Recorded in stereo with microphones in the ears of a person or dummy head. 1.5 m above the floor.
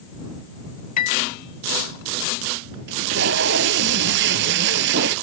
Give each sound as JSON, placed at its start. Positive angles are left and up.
{"t": 1.0, "sound": "a piano", "side_deg": 45}
{"t": 2.9, "sound": "tape being pulled", "side_deg": -65}